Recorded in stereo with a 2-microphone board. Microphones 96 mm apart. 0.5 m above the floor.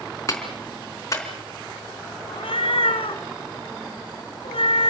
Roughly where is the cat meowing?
Left.